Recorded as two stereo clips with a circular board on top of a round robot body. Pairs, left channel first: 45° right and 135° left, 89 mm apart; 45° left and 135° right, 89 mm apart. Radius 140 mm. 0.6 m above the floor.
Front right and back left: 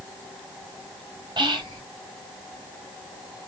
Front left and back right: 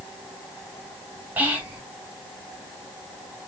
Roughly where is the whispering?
Behind left.